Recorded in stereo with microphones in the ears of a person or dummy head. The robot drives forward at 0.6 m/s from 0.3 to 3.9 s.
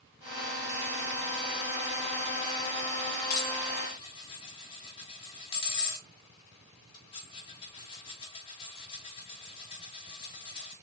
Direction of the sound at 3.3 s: 40° left (ahead or behind).